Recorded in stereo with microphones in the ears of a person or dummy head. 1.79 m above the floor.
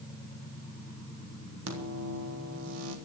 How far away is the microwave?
About 3.5 m.